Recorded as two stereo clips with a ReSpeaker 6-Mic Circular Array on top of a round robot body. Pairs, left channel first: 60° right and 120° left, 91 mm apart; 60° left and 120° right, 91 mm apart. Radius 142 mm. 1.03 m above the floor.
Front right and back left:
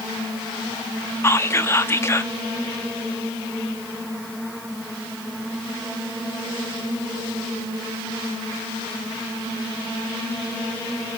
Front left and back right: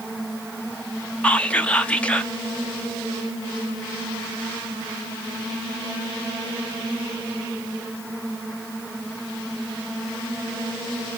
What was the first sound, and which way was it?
Whispering, 10° right.